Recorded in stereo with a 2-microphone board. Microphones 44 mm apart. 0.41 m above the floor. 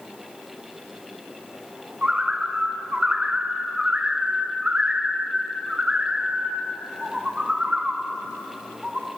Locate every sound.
2.0 s a bird: 30° right (ahead or behind), 1.6 m